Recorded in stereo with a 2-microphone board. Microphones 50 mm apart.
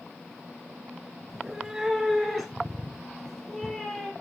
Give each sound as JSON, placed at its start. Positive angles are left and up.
{"t": 1.3, "sound": "a cat meowing", "side_deg": -10, "distance_m": 2.5}